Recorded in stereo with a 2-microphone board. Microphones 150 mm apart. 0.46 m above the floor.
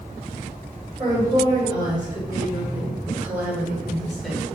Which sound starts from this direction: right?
A woman speaking, at 1.0 s.